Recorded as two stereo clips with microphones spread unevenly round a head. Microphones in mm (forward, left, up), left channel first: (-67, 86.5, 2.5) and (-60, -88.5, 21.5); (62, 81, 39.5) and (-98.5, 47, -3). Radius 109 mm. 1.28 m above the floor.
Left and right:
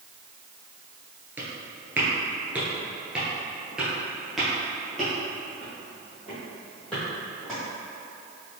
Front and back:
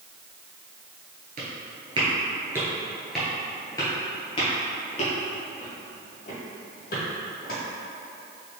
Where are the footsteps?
145° right, 1.3 m; by 7.6 s 5° left, 3 m.